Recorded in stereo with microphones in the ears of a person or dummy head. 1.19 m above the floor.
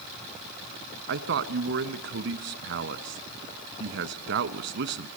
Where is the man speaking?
75° right (ahead or behind), 1.3 m.